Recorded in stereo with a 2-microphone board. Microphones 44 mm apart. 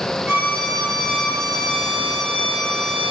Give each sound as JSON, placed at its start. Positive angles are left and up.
{"t": 0.3, "sound": "a violin", "side_deg": -75, "distance_m": 1.1}